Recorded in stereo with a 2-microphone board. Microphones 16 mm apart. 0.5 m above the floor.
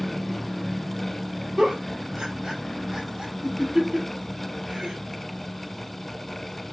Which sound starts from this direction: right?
A giggle, at 1.6 s.